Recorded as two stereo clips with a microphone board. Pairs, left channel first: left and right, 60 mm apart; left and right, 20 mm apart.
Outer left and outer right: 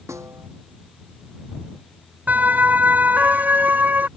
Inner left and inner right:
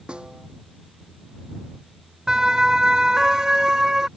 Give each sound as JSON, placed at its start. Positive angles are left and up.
{"t": 0.1, "sound": "a snare drum", "side_deg": -55}
{"t": 2.3, "sound": "a siren", "side_deg": -30}